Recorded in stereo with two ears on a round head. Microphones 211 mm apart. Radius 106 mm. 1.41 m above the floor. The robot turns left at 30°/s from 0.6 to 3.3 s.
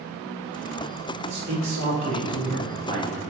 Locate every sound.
1.3 s a man speaking: 100° right, 2.5 m; by 3.2 s 155° right, 2.5 m